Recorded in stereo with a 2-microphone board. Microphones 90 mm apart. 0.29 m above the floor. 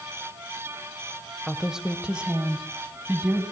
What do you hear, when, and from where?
1.5 s a woman speaking: 5° right (ahead or behind), 1.3 m; by 3.4 s 15° right (ahead or behind), 2.5 m